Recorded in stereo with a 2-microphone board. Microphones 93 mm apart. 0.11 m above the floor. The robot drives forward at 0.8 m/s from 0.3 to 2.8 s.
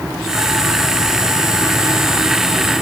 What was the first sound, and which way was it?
Only background noise.